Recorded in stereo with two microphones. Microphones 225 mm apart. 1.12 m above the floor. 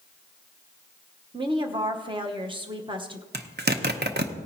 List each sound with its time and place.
1.3 s a woman speaking: 20° right (ahead or behind), 1.0 m
3.3 s a zipper: 45° right (ahead or behind), 0.8 m